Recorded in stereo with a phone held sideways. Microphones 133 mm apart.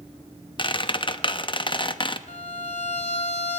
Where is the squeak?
35° left (ahead or behind), 0.6 m.